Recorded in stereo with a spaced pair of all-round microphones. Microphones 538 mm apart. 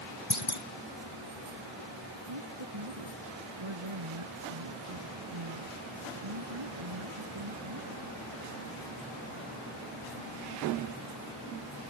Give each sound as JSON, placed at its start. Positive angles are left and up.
{"t": 0.3, "sound": "a clunk", "side_deg": 60}
{"t": 2.3, "sound": "a woman speaking", "side_deg": -60}